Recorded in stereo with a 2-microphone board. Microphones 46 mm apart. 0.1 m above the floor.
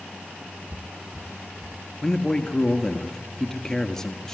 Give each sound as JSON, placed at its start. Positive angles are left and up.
{"t": 0.7, "sound": "footsteps", "side_deg": 0, "distance_m": 0.8}
{"t": 2.0, "sound": "a man speaking", "side_deg": 10, "distance_m": 1.5}